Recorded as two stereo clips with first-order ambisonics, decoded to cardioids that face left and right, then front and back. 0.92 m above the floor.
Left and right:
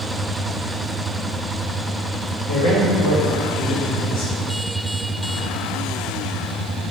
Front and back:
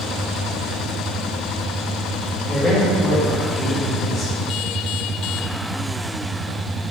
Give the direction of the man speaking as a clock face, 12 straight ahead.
9 o'clock.